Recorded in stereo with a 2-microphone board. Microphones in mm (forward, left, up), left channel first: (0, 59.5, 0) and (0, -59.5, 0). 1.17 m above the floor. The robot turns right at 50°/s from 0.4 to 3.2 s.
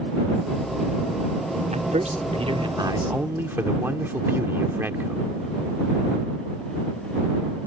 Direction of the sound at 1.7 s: 90° right.